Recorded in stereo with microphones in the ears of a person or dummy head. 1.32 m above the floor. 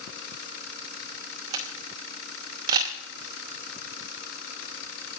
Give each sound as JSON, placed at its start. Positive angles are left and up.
{"t": 1.5, "sound": "a camera shutter", "side_deg": -25, "distance_m": 0.8}